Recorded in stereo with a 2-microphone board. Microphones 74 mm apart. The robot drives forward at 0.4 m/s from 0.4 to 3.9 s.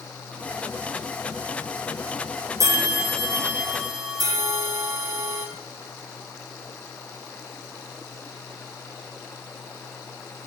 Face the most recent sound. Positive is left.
turn(degrees=-55)  # may be behind; listen again after turning